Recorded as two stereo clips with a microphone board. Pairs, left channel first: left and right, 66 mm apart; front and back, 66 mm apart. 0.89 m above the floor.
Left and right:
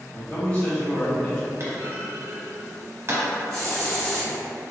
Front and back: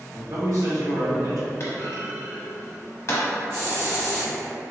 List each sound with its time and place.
0.1 s a man speaking: 150° left, 1.3 m
1.6 s a clunk: 45° right, 0.8 m
3.5 s a hiss: 155° left, 1.4 m